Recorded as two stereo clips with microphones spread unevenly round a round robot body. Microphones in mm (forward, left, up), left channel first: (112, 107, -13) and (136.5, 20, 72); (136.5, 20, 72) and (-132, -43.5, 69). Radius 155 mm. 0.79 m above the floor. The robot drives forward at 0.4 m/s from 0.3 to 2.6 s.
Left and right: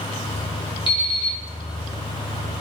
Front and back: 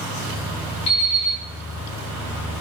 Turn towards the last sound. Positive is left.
turn(degrees=80)